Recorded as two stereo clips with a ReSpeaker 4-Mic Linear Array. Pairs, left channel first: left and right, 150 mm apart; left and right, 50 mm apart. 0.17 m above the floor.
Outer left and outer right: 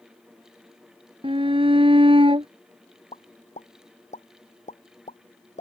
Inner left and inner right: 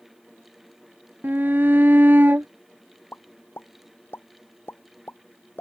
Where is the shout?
35° right (ahead or behind).